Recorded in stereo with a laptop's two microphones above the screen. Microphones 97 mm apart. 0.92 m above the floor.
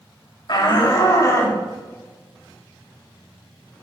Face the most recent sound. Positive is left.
turn(degrees=15)  # may be behind; listen again after turning